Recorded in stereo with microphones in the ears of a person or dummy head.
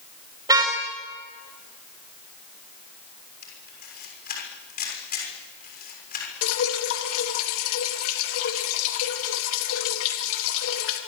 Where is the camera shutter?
45° left (ahead or behind), 6.5 m.